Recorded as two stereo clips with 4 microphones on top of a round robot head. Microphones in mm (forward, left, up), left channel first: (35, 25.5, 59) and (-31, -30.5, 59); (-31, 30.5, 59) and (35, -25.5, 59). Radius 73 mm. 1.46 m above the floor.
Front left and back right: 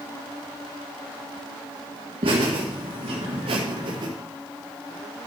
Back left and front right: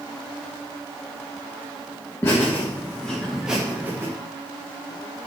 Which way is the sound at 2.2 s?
160° right.